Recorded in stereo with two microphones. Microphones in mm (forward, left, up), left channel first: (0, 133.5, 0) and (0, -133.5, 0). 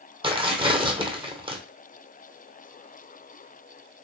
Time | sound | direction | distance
0.2 | tearing paper | 20° right (ahead or behind) | 0.8 m